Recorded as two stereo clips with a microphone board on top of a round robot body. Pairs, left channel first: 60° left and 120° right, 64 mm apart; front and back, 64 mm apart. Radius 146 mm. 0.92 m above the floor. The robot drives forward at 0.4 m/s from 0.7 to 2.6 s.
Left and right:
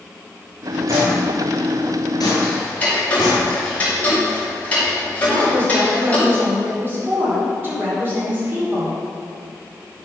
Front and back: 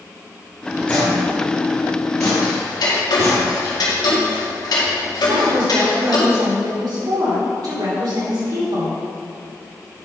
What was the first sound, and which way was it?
Footsteps, 65° right.